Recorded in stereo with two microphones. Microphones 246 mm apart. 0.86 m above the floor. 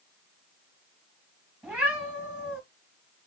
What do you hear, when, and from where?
1.6 s a cat meowing: 5° right (ahead or behind), 2.5 m